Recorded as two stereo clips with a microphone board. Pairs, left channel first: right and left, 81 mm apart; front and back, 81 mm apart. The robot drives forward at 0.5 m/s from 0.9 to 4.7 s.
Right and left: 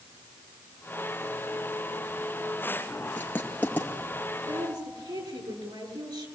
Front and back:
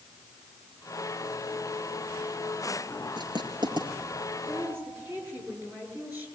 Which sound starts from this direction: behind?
Writing, at 3.2 s.